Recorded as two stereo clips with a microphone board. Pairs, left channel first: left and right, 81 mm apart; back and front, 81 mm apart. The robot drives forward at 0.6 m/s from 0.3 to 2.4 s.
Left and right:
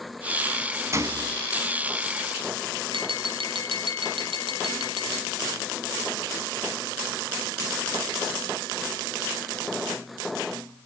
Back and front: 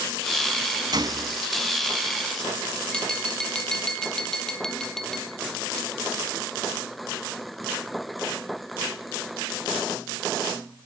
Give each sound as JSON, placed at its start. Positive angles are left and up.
{"t": 0.9, "sound": "a gunshot", "azimuth_deg": -35, "distance_m": 1.7}
{"t": 2.9, "sound": "tapping", "azimuth_deg": -95, "distance_m": 2.5}